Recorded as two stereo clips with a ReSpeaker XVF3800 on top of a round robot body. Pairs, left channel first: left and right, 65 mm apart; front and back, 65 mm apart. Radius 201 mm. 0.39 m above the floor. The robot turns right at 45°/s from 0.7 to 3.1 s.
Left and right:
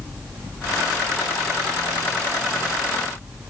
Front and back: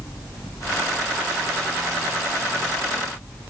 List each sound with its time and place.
Only background noise.